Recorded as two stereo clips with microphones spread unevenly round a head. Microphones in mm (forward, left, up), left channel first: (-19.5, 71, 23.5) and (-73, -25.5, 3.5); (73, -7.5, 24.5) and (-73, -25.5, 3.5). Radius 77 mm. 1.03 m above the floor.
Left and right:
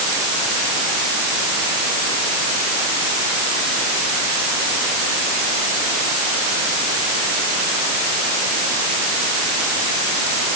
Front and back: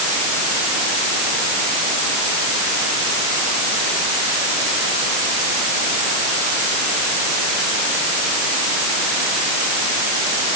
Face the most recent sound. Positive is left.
No sound to turn to.